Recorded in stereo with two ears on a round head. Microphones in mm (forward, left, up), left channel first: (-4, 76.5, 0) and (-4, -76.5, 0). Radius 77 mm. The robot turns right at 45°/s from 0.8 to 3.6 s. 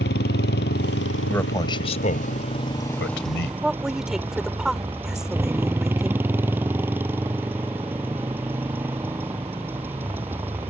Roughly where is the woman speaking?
Centre.